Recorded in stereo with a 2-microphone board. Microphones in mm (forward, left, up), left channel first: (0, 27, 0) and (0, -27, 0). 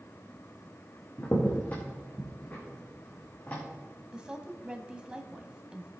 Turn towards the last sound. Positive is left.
turn(degrees=-15)  # may be behind; listen again after turning